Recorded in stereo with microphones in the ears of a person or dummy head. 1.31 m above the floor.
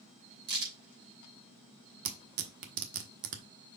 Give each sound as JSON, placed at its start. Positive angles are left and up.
{"t": 0.5, "sound": "a crack", "side_deg": -60, "distance_m": 3.5}
{"t": 2.0, "sound": "tearing paper", "side_deg": -55, "distance_m": 1.3}